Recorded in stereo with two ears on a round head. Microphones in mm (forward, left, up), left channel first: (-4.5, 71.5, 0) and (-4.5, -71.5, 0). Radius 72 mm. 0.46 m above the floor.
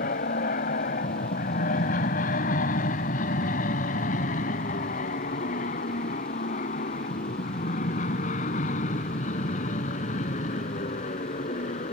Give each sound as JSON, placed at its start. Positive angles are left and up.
{"t": 0.0, "sound": "an aircraft", "side_deg": 50}